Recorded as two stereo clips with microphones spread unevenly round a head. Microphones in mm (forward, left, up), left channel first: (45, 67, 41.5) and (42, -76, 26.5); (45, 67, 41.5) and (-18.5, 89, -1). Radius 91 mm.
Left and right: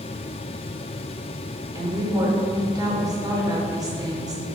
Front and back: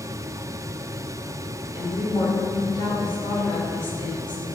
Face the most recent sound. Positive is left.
turn(degrees=-30)